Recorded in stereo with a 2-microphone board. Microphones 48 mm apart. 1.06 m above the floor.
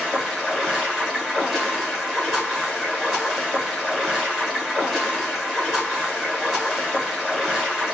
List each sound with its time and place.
0.0 s running water: 5° left (ahead or behind), 1.2 m